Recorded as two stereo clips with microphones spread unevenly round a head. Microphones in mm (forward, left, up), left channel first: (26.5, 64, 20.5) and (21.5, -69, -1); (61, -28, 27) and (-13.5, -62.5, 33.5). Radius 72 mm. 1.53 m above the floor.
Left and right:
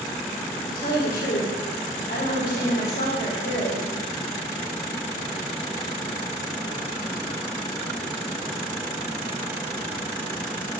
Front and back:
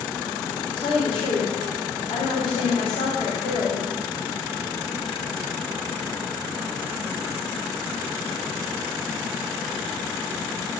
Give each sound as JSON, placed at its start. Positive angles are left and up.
{"t": 0.7, "sound": "a woman speaking", "azimuth_deg": 70, "distance_m": 5.0}